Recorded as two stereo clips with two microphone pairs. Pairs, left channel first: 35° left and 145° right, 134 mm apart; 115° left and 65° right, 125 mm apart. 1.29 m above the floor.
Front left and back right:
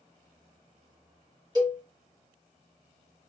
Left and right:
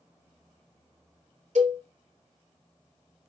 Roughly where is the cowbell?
Right.